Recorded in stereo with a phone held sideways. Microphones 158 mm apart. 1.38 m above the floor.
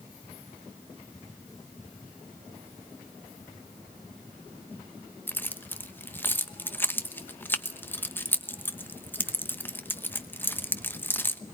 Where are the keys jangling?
10° left (ahead or behind), 1.0 m.